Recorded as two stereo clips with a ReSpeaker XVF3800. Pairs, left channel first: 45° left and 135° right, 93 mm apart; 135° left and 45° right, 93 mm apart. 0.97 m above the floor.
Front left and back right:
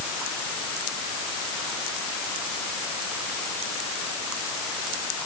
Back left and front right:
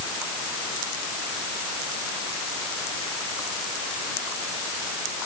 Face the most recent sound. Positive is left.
No sound to turn to.